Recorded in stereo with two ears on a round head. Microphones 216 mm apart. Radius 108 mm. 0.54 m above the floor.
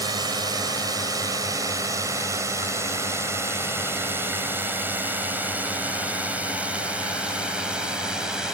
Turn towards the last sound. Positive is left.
turn(degrees=-5)  # may be behind; listen again after turning